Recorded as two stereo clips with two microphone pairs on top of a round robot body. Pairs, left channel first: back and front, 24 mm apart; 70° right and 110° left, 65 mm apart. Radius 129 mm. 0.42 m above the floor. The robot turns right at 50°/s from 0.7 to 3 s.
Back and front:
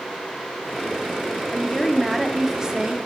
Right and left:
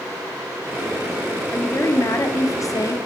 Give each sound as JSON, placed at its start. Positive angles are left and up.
{"t": 1.5, "sound": "a woman speaking", "azimuth_deg": -125, "distance_m": 1.5}